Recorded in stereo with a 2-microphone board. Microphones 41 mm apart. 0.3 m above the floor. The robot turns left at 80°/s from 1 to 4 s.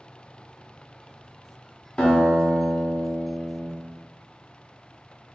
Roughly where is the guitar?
Behind left.